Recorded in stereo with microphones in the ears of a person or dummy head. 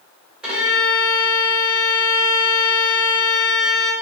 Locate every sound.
0.4 s a violin: centre (ahead or behind), 1.3 m